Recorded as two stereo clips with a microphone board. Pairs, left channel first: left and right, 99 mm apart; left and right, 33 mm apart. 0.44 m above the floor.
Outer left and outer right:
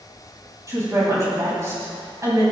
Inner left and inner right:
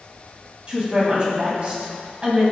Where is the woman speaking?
30° right (ahead or behind), 3.5 m.